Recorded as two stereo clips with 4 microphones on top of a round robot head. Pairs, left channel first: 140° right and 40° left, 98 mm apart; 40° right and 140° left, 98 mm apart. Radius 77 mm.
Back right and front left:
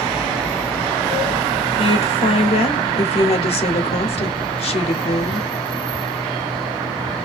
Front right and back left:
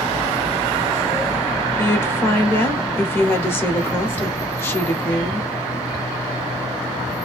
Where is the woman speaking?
110° right, 0.9 m.